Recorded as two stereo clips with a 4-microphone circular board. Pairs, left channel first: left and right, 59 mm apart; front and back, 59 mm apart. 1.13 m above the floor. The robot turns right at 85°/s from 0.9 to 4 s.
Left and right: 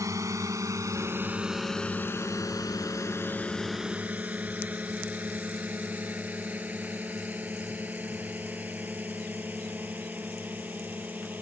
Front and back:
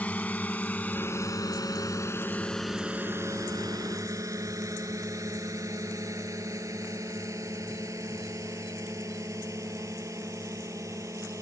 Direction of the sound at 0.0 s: 65° right.